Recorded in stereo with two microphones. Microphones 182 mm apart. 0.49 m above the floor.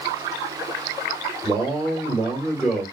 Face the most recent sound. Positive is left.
turn(degrees=0)  # may be behind; listen again after turning